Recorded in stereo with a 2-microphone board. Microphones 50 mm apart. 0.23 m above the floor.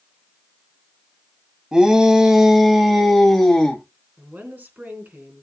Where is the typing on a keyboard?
No typing on a keyboard in this recording.